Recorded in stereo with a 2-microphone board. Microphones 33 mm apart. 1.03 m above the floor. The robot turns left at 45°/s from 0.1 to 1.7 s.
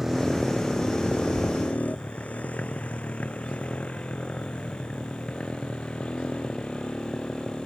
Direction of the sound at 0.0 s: 10° right (ahead or behind).